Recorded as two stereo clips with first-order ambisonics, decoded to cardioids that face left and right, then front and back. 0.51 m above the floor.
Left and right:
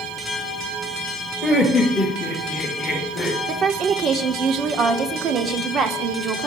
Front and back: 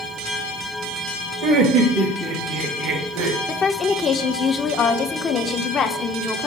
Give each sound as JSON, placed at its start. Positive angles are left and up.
{"t": 1.4, "sound": "laughter", "azimuth_deg": -170, "distance_m": 2.0}
{"t": 3.5, "sound": "a woman speaking", "azimuth_deg": -55, "distance_m": 0.9}